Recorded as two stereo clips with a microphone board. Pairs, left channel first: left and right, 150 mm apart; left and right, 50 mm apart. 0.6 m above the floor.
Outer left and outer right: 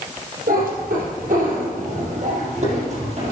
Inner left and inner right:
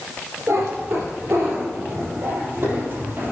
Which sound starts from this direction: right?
A cat meowing, at 0.5 s.